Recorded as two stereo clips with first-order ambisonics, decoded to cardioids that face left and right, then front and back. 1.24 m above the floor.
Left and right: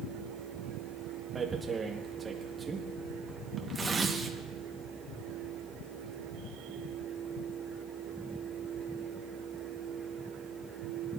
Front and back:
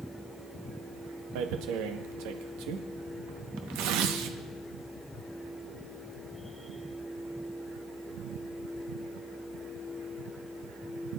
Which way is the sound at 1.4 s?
160° right.